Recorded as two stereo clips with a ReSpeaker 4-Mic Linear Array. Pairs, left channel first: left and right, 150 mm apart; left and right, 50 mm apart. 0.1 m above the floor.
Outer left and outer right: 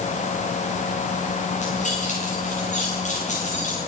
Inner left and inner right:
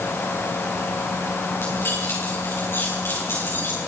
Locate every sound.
1.6 s keys jangling: 55° left (ahead or behind), 6.5 m